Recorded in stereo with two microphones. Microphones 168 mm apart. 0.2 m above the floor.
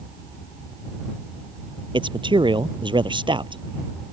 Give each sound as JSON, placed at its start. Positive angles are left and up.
{"t": 1.9, "sound": "a man speaking", "side_deg": -30}